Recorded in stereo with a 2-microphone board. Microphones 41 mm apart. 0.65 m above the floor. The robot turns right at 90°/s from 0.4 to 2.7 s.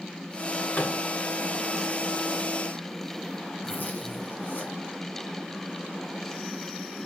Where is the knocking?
No knocking in this recording.